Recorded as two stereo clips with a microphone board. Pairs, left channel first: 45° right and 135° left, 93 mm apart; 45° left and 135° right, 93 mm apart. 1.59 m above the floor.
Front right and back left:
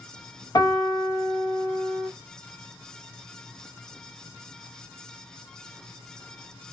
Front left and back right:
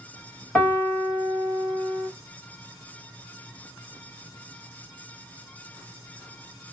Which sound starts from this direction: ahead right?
A piano, at 0.6 s.